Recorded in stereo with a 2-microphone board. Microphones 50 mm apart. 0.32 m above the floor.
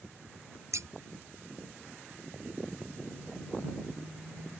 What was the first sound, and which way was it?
Scissors, 85° right.